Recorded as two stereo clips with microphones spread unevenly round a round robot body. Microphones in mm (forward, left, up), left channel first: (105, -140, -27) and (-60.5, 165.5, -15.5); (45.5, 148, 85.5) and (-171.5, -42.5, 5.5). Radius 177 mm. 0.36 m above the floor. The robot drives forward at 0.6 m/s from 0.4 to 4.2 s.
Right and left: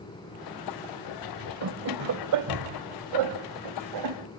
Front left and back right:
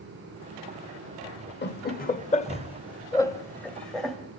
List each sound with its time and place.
1.6 s laughter: 95° left, 1.9 m; by 4.2 s 140° left, 2.5 m